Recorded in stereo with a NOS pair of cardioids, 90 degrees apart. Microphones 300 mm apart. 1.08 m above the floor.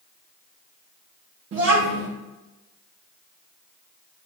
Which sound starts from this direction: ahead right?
A child speaking, at 1.5 s.